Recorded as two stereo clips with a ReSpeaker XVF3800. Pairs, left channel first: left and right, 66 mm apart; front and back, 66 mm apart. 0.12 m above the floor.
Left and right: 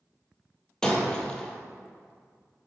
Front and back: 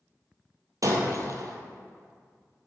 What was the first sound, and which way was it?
Breaking glass, 165° left.